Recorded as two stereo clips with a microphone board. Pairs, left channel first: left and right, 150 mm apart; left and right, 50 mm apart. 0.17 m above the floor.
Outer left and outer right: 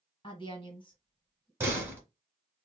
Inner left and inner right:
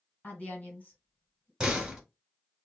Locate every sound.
0.2 s a woman speaking: 35° left (ahead or behind), 1.3 m
1.6 s a door slam: 15° right (ahead or behind), 1.0 m